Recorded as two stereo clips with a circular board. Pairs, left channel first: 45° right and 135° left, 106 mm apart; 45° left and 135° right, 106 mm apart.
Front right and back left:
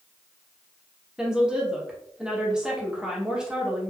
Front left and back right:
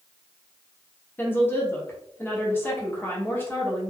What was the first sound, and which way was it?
A woman speaking, 65° left.